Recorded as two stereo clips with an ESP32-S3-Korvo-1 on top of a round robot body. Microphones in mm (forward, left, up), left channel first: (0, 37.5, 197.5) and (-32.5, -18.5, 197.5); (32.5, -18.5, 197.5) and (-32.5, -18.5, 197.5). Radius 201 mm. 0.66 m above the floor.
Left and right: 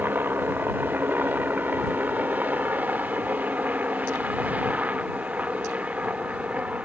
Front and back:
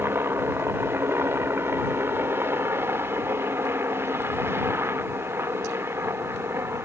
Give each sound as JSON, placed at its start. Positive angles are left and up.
{"t": 0.0, "sound": "a helicopter", "azimuth_deg": -160}